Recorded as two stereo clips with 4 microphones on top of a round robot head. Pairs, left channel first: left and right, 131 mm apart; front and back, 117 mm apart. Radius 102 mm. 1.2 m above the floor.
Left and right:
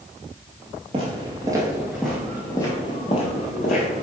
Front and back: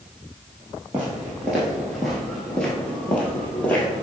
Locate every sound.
0.9 s footsteps: 100° right, 1.4 m; by 4.0 s 75° left, 1.8 m